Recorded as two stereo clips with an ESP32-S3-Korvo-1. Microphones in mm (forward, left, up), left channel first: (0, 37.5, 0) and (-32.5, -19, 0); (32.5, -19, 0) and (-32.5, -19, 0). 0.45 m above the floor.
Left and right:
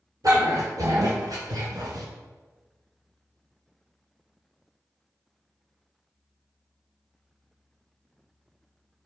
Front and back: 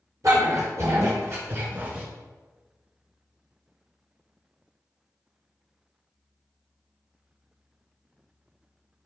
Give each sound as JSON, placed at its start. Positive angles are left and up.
{"t": 0.2, "sound": "a dog barking", "azimuth_deg": -145, "distance_m": 3.5}